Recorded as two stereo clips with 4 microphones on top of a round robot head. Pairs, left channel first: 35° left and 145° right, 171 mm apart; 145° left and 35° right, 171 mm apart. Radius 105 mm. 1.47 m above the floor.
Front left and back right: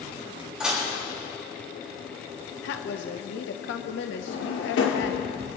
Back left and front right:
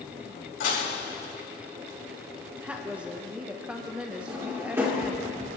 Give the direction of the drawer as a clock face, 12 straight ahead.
11 o'clock.